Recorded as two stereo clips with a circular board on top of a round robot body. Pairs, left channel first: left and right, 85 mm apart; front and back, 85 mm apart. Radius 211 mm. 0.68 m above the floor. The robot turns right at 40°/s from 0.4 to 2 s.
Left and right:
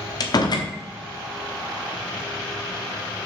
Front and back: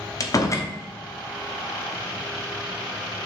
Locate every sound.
0.2 s a door slam: 50° left, 1.1 m; by 0.7 s 60° left, 1.1 m